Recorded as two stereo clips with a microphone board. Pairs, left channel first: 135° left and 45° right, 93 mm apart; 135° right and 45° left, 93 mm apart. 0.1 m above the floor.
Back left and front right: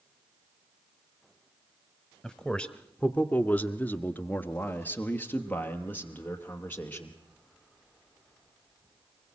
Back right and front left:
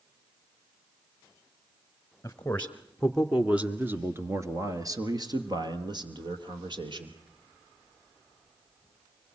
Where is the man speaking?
145° right, 1.2 m; by 7.2 s 65° left, 2.5 m.